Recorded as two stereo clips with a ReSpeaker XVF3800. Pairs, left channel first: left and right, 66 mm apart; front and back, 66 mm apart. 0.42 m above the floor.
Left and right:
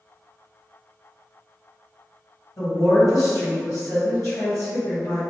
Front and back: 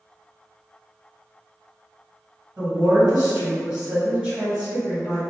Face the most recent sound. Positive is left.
turn(degrees=110)